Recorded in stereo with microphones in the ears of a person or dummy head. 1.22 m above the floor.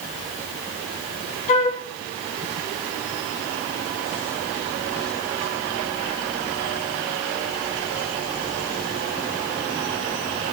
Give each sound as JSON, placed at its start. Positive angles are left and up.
{"t": 1.5, "sound": "a flute", "side_deg": 40, "distance_m": 5.5}